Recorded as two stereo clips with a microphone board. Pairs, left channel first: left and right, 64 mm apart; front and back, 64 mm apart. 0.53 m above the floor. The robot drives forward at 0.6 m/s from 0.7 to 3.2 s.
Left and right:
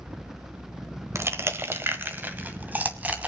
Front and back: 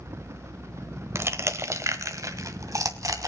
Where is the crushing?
135° right, 1.3 m; by 3.3 s 155° right, 2.5 m.